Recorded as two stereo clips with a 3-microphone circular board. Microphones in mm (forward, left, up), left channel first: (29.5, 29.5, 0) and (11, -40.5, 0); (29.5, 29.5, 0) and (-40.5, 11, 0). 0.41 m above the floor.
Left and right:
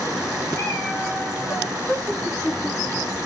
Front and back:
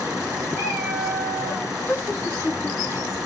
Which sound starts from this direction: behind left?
A cat meowing, at 0.5 s.